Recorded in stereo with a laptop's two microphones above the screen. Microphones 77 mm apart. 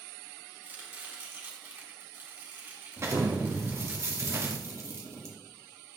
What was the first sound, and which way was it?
Chopping, 30° right (ahead or behind).